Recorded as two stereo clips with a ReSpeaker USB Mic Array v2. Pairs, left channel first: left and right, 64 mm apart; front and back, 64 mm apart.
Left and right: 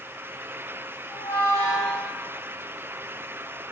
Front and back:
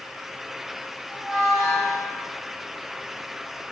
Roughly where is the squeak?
Right.